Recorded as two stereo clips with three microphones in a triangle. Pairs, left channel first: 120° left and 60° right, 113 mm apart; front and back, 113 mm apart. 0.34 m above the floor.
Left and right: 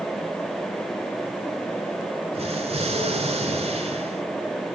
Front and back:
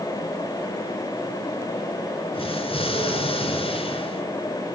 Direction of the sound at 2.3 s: 35° right.